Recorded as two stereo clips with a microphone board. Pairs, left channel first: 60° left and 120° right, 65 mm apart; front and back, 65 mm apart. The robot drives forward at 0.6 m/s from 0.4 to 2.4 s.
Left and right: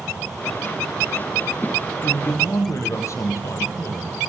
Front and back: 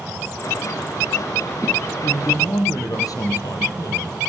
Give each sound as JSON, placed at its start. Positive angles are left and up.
{"t": 2.0, "sound": "a man speaking", "azimuth_deg": 20, "distance_m": 5.0}